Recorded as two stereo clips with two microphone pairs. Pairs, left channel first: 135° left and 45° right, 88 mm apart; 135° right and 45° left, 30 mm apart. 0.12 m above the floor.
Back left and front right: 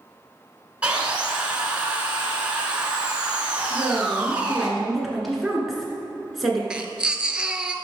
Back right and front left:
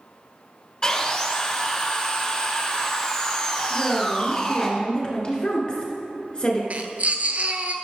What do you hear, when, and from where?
0.8 s sawing: 110° right, 1.6 m
3.7 s a woman speaking: 135° right, 1.9 m
6.7 s a baby crying: 35° left, 0.8 m